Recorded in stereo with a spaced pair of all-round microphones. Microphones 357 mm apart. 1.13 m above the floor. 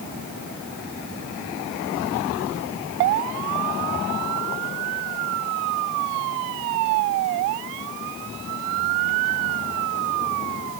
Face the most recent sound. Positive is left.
No sound to turn to.